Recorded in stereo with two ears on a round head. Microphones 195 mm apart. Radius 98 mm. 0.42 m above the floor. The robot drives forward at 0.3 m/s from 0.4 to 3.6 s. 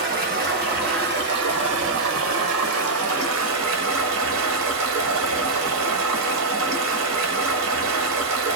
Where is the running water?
40° right (ahead or behind), 1.1 m; by 8.6 s 65° right (ahead or behind), 0.8 m.